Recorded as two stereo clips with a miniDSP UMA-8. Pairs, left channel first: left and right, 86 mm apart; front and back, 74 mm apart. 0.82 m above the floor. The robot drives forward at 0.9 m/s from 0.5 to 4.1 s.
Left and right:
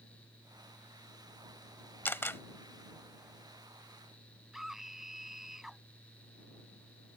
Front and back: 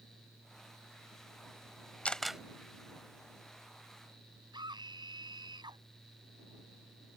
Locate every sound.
2.0 s a camera shutter: 55° left; by 2.4 s 115° left
4.5 s a scream: 175° right